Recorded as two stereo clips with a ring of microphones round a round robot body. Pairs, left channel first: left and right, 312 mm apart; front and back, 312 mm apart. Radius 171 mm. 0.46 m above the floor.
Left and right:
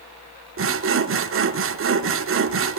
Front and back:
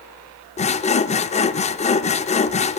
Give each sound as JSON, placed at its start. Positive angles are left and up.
{"t": 0.6, "sound": "sawing", "azimuth_deg": -60, "distance_m": 0.6}